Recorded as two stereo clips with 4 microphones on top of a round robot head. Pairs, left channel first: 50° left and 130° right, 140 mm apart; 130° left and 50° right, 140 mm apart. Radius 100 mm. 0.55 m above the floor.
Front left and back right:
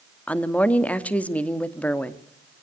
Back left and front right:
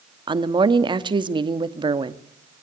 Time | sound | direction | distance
0.3 | a woman speaking | 25° right | 1.4 m